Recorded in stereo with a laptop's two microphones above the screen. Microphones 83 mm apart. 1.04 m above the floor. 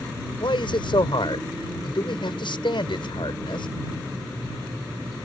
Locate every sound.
0.4 s a man speaking: 75° left (ahead or behind)